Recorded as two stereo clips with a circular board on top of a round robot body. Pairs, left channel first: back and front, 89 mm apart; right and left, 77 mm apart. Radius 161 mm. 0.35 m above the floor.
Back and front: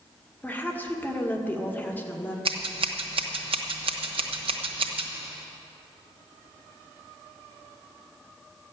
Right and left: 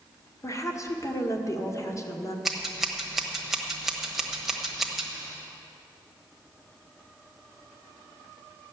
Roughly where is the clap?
No clap in this recording.